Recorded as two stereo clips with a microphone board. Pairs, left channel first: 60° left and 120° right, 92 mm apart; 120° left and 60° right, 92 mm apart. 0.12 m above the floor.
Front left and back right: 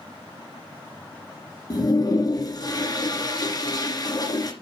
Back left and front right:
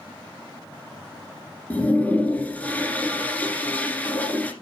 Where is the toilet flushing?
55° left, 2 m.